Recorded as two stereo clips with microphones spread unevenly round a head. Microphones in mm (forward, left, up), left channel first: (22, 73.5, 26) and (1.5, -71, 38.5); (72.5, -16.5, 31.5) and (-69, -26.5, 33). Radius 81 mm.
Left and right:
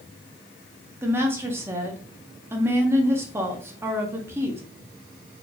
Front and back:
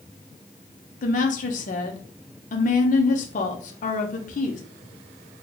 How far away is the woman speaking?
About 0.8 m.